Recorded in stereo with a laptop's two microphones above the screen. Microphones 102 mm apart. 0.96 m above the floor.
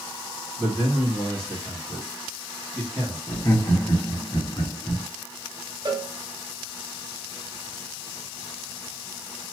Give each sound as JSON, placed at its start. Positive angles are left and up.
{"t": 0.6, "sound": "a man speaking", "side_deg": 15, "distance_m": 1.7}
{"t": 3.3, "sound": "laughter", "side_deg": 45, "distance_m": 1.4}
{"t": 5.8, "sound": "a cowbell", "side_deg": -45, "distance_m": 0.7}